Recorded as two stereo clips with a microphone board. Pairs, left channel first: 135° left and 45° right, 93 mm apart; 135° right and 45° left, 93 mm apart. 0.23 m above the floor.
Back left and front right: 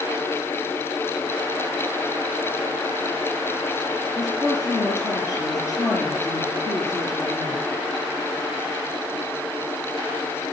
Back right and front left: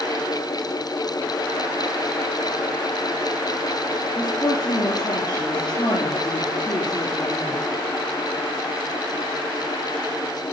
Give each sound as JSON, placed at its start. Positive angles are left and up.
{"t": 4.2, "sound": "a woman speaking", "azimuth_deg": -175, "distance_m": 4.0}